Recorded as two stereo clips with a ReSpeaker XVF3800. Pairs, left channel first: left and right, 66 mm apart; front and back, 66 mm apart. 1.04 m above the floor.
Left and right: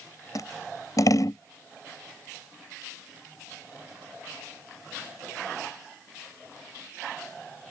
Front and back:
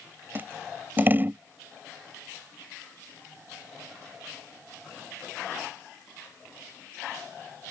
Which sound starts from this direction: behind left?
Scissors, at 0.3 s.